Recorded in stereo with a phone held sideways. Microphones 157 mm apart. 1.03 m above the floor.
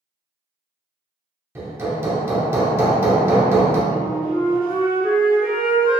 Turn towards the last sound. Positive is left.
turn(degrees=-60)  # may be behind; listen again after turning